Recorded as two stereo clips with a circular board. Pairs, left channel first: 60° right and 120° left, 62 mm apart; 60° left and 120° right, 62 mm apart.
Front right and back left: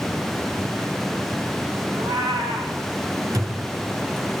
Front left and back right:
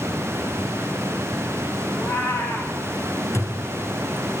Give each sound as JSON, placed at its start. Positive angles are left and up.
{"t": 1.9, "sound": "a cat meowing", "azimuth_deg": 125, "distance_m": 6.0}
{"t": 3.3, "sound": "a thud", "azimuth_deg": 105, "distance_m": 2.5}